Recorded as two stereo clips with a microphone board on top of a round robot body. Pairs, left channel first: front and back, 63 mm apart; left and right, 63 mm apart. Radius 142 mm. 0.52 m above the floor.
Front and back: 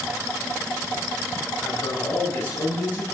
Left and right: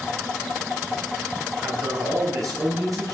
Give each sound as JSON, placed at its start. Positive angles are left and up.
{"t": 1.6, "sound": "a man speaking", "azimuth_deg": -60, "distance_m": 10.0}